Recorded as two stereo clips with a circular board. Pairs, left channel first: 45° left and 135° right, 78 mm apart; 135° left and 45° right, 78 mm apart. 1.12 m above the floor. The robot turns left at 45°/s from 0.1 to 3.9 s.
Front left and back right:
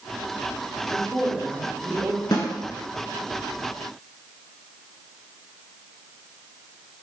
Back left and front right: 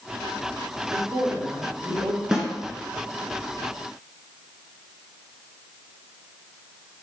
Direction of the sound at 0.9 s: 25° right.